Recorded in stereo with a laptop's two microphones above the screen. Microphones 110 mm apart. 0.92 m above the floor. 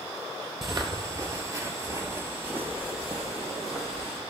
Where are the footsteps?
30° right (ahead or behind), 1.1 m; by 4.2 s 5° right (ahead or behind), 1.8 m.